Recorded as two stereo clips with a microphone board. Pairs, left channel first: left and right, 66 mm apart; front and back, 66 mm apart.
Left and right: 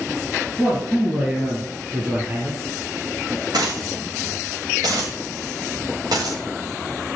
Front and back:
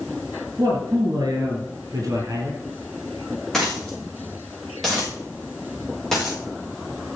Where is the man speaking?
170° right, 3 m; by 2.6 s 155° right, 4.5 m.